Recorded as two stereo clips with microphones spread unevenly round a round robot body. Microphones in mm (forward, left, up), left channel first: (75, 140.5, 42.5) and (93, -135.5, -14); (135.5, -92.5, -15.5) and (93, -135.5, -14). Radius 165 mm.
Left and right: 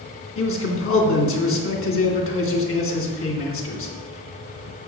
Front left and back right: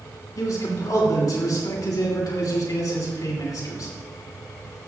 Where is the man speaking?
50° left, 2.5 m.